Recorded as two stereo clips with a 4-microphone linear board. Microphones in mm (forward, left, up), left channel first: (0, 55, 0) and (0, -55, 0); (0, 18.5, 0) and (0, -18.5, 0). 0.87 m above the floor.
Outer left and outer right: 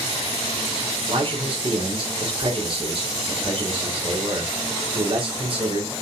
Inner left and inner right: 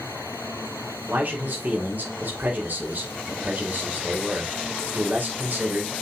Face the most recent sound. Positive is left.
turn(degrees=-55)  # may be behind; listen again after turning